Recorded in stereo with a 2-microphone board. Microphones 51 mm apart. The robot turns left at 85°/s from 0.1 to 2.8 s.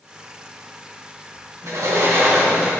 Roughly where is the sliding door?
Right.